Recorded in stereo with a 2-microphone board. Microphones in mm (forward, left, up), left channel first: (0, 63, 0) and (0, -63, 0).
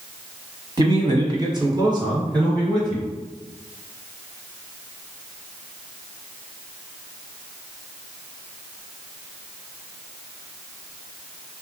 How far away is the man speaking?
About 1.2 m.